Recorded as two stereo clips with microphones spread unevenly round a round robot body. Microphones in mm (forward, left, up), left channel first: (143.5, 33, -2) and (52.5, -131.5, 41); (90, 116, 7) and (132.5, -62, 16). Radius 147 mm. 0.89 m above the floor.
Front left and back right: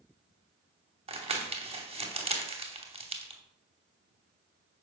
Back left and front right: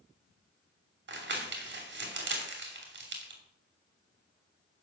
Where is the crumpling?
55° right, 2.5 m.